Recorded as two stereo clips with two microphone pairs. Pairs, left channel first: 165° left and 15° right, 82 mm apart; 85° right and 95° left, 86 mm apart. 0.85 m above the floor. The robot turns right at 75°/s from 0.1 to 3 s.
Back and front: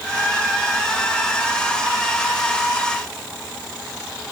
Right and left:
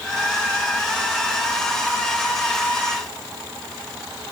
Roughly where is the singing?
I don't hear singing.